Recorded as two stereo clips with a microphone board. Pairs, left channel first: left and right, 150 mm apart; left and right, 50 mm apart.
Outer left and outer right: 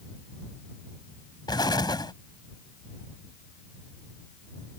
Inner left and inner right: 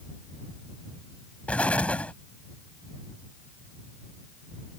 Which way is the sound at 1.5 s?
30° left (ahead or behind).